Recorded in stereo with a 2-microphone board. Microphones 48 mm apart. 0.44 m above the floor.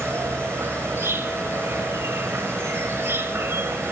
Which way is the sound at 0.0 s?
65° right (ahead or behind).